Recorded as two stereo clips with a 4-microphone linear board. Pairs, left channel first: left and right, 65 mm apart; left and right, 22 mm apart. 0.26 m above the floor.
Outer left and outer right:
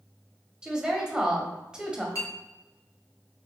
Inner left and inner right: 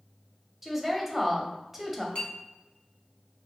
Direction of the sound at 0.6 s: 10° right (ahead or behind).